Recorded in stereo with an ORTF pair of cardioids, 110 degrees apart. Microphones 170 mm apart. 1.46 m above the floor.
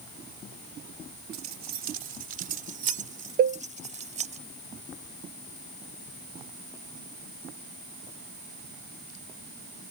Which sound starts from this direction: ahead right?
Keys jangling, at 1.3 s.